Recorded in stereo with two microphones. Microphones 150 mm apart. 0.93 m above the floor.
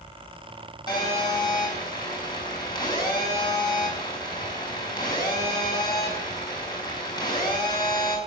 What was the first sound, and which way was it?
A phone buzzing, 30° left (ahead or behind).